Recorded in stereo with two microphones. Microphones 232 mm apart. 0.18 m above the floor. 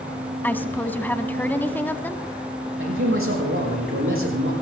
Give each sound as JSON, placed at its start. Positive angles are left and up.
{"t": 0.4, "sound": "a woman speaking", "side_deg": 10, "distance_m": 1.0}
{"t": 2.8, "sound": "a man speaking", "side_deg": -65, "distance_m": 6.5}